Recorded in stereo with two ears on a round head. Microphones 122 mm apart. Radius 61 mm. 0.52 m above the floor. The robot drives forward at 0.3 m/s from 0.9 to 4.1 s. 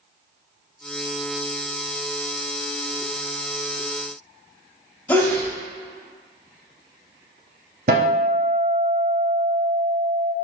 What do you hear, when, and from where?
5.1 s a sneeze: 10° left (ahead or behind), 0.8 m
7.9 s a guitar: 60° right (ahead or behind), 0.7 m